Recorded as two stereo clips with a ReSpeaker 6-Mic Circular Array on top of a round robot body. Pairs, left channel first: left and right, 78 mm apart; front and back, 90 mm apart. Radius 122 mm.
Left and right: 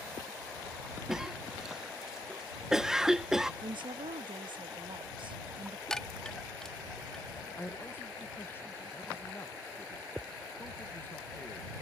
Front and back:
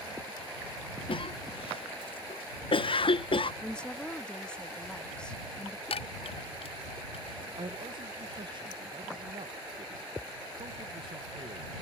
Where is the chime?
5° left.